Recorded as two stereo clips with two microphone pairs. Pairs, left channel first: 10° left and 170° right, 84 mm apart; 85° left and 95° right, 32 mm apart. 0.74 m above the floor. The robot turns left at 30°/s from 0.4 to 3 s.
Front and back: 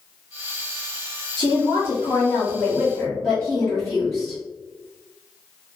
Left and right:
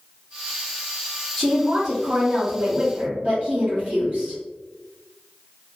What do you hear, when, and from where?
1.4 s a woman speaking: 15° right, 1.5 m; by 4.4 s 65° right, 1.5 m